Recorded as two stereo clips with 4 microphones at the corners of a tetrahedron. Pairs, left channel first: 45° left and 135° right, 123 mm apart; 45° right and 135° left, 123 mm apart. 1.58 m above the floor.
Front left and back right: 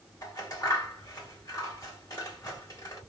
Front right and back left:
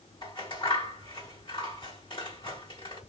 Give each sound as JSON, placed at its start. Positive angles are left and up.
{"t": 0.2, "sound": "scissors", "azimuth_deg": -10, "distance_m": 1.9}